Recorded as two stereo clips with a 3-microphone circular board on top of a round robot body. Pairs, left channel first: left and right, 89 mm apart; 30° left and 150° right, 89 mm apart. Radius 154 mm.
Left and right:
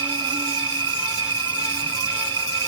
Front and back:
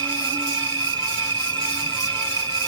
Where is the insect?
120° right, 0.7 m.